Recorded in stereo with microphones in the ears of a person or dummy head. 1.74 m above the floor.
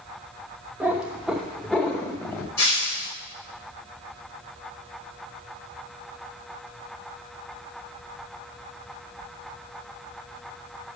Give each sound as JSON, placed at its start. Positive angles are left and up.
{"t": 0.8, "sound": "a cat meowing", "side_deg": -5, "distance_m": 1.1}
{"t": 2.6, "sound": "breaking glass", "side_deg": 15, "distance_m": 3.5}